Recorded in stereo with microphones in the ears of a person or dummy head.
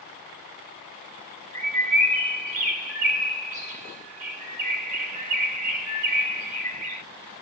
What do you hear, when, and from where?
1.5 s a bird: 40° right (ahead or behind), 2.5 m